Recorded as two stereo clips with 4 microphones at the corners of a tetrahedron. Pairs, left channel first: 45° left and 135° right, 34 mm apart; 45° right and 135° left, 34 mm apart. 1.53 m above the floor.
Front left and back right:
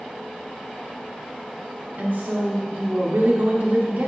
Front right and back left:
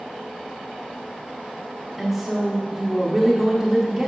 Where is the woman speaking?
140° right, 0.8 m.